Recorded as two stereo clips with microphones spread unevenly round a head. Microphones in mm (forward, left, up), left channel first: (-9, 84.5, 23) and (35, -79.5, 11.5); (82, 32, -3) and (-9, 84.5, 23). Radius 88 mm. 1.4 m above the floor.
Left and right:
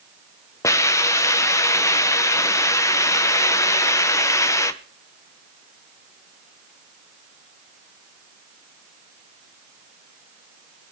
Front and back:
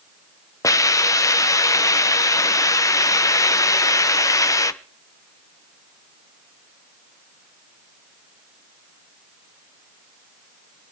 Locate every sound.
0.6 s a hiss: 30° left, 0.8 m